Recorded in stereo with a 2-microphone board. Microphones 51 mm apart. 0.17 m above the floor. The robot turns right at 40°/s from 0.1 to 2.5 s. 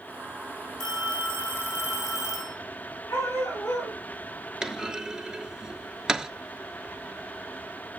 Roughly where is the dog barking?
Left.